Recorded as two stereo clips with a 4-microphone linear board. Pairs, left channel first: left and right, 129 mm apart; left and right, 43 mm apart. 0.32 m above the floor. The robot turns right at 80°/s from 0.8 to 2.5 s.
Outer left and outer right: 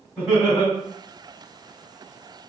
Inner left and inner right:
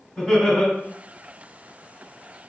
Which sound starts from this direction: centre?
Laughter, at 0.2 s.